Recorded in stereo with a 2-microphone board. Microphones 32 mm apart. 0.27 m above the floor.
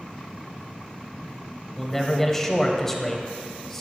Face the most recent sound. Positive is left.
turn(degrees=10)  # may be behind; listen again after turning